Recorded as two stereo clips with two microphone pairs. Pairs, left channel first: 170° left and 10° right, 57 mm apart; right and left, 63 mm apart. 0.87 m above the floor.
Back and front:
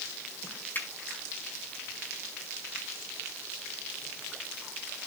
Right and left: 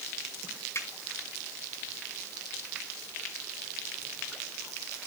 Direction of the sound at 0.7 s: 135° right.